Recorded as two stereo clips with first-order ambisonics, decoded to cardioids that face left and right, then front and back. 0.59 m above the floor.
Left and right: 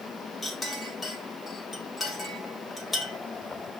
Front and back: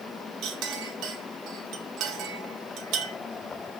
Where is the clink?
170° left, 0.9 m.